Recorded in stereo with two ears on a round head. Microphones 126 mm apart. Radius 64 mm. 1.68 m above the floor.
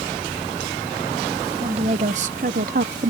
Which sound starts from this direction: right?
A woman speaking, at 1.6 s.